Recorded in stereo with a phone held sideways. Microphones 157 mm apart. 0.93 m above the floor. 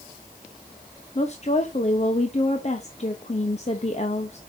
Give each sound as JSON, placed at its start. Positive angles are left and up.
{"t": 1.1, "sound": "a woman speaking", "side_deg": 45, "distance_m": 1.0}